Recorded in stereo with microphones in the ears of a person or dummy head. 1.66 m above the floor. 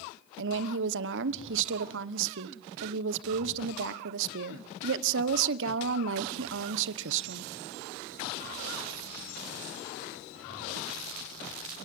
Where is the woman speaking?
70° right (ahead or behind), 1.1 m.